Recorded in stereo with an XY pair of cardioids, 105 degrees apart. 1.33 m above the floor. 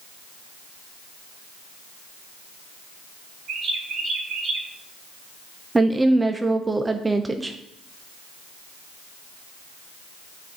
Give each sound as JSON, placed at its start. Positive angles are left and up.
{"t": 3.5, "sound": "a bird", "azimuth_deg": -70, "distance_m": 3.0}
{"t": 5.8, "sound": "a woman speaking", "azimuth_deg": -20, "distance_m": 0.6}